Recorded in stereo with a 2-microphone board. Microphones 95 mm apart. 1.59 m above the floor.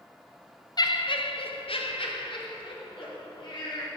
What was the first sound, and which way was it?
Laughter, 45° left (ahead or behind).